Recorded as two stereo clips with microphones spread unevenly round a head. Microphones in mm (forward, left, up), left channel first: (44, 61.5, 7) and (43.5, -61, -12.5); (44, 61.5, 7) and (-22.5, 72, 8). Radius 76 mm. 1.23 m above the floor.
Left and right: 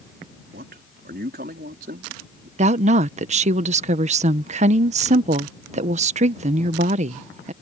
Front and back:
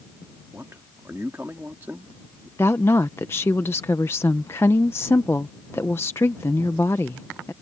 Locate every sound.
0.5 s a man speaking: 115° right
2.6 s a woman speaking: 75° right